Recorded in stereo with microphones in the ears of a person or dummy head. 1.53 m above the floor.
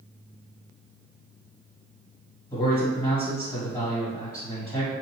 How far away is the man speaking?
About 1.7 m.